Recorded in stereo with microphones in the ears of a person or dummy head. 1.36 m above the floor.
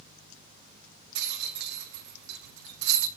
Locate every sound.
1.1 s a rattle: 65° right (ahead or behind), 1.0 m